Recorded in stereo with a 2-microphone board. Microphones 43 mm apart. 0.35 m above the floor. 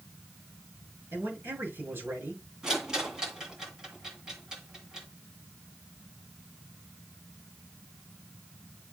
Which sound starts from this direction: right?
A man speaking, at 1.1 s.